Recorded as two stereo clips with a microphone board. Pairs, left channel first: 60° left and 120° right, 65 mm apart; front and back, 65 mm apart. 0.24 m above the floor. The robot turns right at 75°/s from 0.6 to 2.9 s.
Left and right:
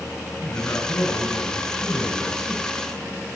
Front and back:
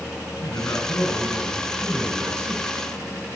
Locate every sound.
0.4 s a man speaking: 20° left, 6 m; by 3.4 s 170° right, 6 m